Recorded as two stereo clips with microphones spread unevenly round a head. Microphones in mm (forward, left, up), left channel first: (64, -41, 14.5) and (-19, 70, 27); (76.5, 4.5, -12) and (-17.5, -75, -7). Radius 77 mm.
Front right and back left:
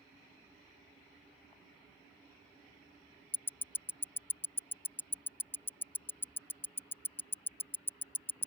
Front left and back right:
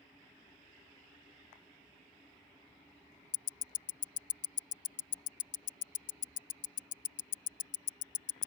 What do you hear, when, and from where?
3.3 s ticking: 25° left